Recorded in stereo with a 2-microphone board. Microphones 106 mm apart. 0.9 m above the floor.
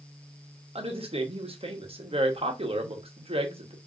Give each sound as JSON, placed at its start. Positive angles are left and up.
{"t": 0.8, "sound": "a woman speaking", "side_deg": -65, "distance_m": 0.9}